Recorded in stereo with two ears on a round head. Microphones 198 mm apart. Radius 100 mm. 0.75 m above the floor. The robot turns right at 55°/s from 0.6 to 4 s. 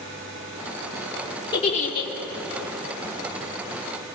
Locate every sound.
1.5 s a giggle: 20° left, 2.5 m; by 2.1 s 55° left, 2.5 m